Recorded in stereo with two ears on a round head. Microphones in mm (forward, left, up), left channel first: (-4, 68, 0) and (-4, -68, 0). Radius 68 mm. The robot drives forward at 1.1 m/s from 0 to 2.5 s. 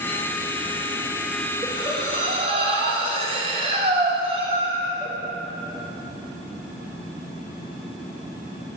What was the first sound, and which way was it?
Breathing, 30° right (ahead or behind).